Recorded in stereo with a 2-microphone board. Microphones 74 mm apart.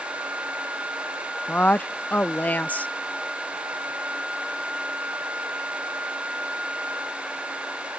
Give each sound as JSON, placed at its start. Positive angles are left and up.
{"t": 1.5, "sound": "a woman speaking", "side_deg": 20}